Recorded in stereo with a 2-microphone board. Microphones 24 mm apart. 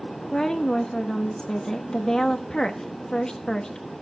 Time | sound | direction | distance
0.3 | a woman speaking | 30° left (ahead or behind) | 1.0 m